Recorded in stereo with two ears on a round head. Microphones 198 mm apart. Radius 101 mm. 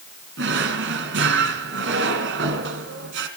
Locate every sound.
0.4 s a drawer: 55° right (ahead or behind), 3 m